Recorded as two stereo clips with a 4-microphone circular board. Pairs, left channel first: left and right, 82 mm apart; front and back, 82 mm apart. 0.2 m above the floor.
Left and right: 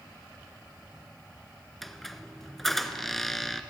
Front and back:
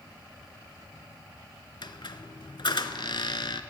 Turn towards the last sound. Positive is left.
turn(degrees=5)